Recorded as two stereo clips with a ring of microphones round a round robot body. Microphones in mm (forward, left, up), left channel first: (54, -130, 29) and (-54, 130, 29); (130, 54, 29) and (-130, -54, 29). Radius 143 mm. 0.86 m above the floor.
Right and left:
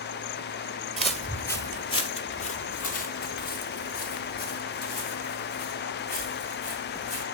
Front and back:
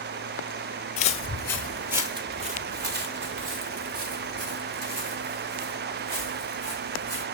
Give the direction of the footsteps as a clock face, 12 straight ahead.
11 o'clock.